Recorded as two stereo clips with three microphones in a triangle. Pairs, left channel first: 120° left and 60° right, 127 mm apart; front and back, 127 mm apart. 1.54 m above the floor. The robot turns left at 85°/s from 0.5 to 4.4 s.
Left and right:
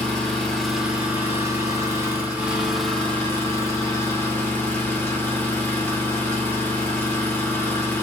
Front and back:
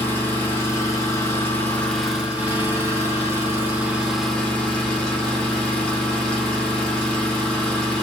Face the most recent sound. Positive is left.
turn(degrees=75)